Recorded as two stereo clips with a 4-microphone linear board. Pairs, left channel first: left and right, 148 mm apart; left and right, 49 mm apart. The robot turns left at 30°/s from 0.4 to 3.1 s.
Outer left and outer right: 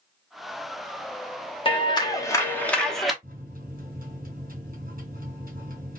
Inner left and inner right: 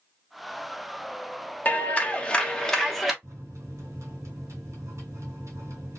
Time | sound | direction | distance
1.6 | a clap | 40° left | 1.0 m
3.2 | a microwave | 70° right (ahead or behind) | 2.5 m